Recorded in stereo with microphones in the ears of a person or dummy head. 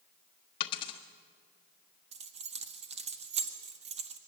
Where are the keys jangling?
30° right (ahead or behind), 1.4 m.